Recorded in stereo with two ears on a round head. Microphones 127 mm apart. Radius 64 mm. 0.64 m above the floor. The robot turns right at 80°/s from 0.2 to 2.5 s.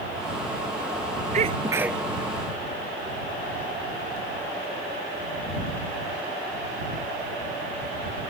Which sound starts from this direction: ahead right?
A sneeze, at 1.3 s.